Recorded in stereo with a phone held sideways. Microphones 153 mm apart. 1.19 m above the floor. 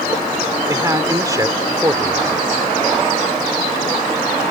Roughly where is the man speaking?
Right.